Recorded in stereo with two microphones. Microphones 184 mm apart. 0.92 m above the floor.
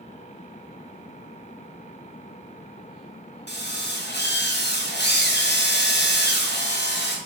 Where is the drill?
70° left (ahead or behind), 1.9 m.